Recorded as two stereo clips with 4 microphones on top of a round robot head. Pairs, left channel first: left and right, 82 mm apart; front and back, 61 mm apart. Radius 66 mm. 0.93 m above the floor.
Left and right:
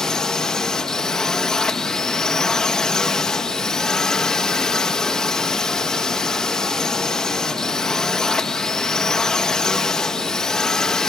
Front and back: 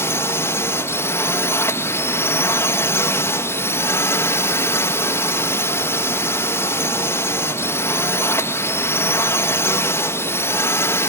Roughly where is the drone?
Ahead.